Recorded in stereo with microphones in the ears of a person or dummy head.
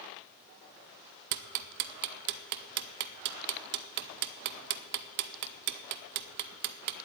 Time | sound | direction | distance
1.3 | ticking | 60° right (ahead or behind) | 0.7 m